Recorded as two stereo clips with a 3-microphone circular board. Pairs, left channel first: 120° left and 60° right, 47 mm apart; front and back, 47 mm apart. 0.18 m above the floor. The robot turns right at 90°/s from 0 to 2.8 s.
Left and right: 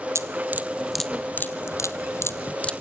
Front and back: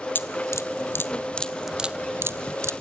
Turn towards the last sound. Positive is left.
turn(degrees=-165)